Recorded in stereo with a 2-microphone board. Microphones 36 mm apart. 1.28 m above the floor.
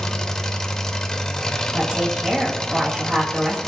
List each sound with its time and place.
0.0 s an engine running: 15° left (ahead or behind), 0.8 m
1.7 s a woman speaking: 30° right (ahead or behind), 2.5 m